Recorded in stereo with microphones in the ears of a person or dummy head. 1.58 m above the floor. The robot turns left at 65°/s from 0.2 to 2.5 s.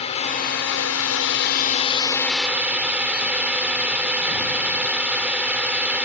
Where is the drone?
140° left; by 6.0 s 10° right.